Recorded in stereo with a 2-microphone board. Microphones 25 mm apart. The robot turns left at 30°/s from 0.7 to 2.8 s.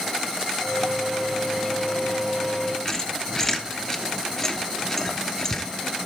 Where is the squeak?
20° left (ahead or behind), 1.1 m.